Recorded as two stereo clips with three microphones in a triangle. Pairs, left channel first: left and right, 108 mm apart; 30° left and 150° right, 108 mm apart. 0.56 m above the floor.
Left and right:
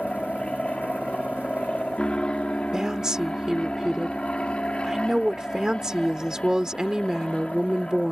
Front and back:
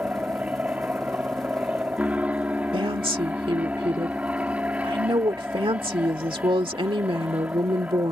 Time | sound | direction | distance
0.0 | an aircraft | 155° left | ?
2.7 | a woman speaking | 175° right | ?